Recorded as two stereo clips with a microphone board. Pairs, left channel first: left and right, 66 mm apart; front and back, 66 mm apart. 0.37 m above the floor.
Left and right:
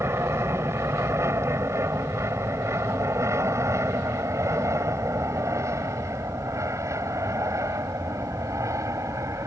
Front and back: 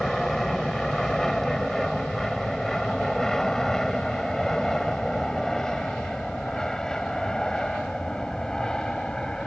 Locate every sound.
0.0 s an aircraft: 85° right; by 9.5 s 80° right